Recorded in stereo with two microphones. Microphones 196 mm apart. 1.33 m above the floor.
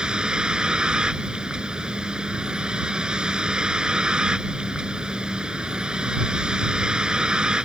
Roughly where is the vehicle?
Centre.